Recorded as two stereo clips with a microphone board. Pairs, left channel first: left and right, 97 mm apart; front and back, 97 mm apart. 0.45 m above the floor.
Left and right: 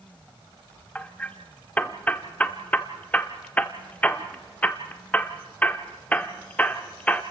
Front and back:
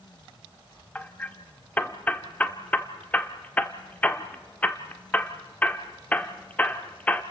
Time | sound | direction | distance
0.9 | hammering | 45° left | 0.9 m